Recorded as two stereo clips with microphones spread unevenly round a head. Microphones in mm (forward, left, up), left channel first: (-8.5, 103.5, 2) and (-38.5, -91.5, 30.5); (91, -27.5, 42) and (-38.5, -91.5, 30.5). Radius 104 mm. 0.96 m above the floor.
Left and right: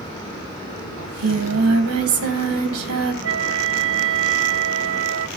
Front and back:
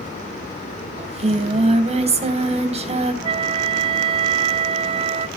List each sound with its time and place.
1.0 s singing: 110° right, 3 m
3.2 s a flute: 100° right, 1.0 m